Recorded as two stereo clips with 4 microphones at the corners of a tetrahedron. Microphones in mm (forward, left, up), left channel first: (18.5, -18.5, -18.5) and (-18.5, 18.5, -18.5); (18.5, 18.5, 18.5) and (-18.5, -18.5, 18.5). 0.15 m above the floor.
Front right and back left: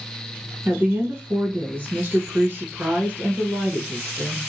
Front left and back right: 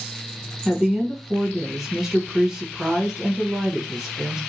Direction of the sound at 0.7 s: 145° left.